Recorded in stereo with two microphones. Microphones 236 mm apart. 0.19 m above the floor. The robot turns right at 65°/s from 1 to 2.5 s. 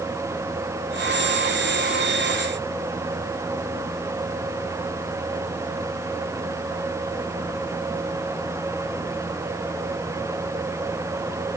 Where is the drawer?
No drawer in this recording.